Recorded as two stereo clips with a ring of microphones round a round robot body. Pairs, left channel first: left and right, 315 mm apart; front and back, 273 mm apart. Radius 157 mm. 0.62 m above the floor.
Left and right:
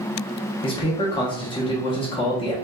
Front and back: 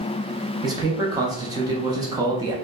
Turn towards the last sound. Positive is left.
turn(degrees=130)